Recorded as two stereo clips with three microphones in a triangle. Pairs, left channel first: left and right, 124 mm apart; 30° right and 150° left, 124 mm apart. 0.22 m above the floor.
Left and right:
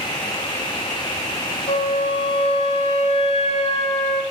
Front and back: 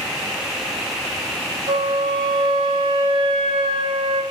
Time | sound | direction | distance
1.7 | a flute | 115° left | 0.8 m